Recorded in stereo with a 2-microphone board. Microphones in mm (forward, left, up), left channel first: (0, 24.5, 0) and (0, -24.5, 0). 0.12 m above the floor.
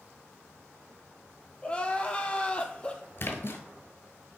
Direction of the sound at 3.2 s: 50° left (ahead or behind).